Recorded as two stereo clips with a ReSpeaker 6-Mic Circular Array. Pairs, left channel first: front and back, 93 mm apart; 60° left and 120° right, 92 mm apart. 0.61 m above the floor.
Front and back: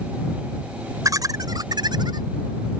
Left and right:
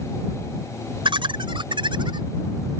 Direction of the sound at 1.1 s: 130° right.